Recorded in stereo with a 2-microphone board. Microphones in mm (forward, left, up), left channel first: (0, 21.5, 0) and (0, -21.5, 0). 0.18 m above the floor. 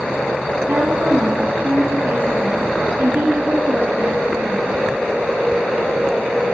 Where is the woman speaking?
65° right (ahead or behind), 5 m.